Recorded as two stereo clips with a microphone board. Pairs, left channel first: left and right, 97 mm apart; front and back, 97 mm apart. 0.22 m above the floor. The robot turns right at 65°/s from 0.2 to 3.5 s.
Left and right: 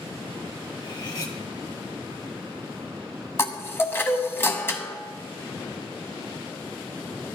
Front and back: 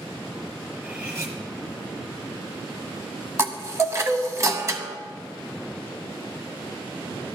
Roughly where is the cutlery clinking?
Left.